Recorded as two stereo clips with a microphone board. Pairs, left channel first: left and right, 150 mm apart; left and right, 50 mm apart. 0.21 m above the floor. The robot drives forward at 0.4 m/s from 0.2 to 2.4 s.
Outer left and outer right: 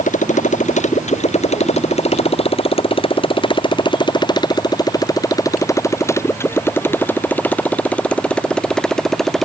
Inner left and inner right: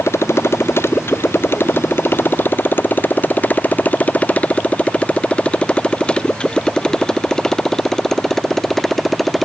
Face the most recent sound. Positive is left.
turn(degrees=0)  # may be behind; listen again after turning